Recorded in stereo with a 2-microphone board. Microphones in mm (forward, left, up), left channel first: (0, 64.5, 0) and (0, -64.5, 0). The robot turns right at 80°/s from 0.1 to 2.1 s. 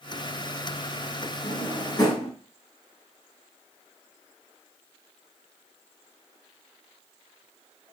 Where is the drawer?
70° left (ahead or behind), 2.5 m; by 2.3 s 20° left (ahead or behind), 2.5 m.